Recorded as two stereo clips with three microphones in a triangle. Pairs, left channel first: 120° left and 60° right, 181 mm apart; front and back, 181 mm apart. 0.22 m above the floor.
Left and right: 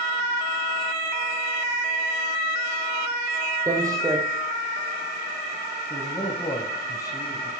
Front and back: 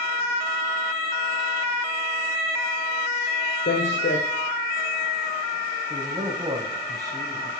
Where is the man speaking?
155° left, 1.0 m.